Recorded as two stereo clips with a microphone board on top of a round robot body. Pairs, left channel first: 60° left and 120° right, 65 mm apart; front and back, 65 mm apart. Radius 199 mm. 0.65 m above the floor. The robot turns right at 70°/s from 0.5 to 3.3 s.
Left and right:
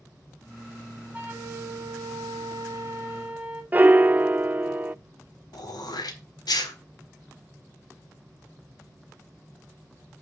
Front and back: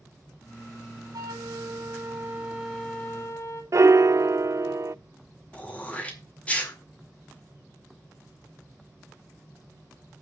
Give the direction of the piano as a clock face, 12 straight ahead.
6 o'clock.